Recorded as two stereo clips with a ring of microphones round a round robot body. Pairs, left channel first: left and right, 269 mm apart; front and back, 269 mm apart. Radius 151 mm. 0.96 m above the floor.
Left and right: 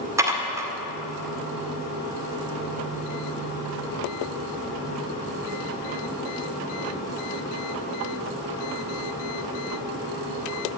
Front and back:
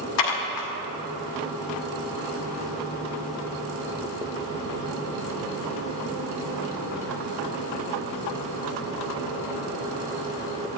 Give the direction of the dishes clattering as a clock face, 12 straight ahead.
12 o'clock.